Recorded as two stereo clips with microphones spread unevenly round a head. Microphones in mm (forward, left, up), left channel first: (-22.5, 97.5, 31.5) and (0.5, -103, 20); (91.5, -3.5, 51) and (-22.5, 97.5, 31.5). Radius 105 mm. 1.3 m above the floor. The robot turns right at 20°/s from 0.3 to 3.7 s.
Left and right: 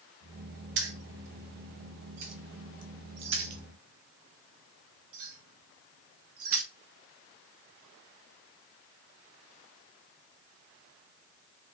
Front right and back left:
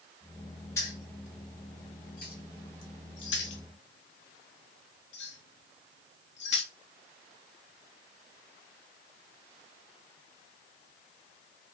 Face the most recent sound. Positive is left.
turn(degrees=-60)